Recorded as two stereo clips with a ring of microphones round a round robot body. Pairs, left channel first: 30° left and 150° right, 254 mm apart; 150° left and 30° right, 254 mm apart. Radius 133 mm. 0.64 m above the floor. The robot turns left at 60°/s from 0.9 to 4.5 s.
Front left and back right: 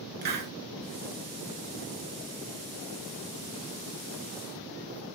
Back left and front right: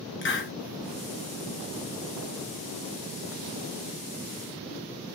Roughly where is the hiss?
Behind.